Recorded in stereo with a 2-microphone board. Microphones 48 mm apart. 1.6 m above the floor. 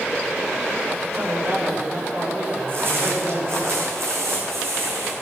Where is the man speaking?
45° right (ahead or behind), 5.5 m; by 3.7 s 50° right (ahead or behind), 6.5 m.